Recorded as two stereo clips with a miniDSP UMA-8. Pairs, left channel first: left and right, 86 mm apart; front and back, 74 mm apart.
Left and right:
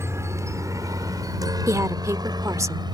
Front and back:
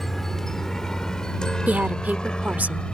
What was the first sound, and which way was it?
A helicopter, 85° right.